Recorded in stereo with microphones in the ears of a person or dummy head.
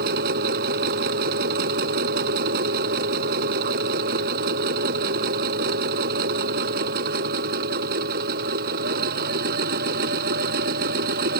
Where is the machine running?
55° right (ahead or behind).